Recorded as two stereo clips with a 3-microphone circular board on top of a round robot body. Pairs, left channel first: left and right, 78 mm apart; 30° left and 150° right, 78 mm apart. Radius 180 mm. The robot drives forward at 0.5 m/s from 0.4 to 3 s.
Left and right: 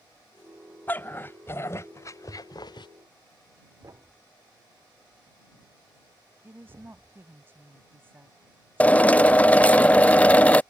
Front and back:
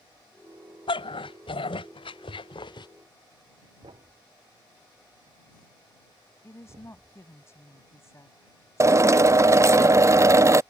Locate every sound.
0.9 s a dog barking: 20° left; by 2.9 s 60° left
3.8 s a thud: 135° right
6.4 s a woman speaking: 25° right
8.8 s a drill: 160° left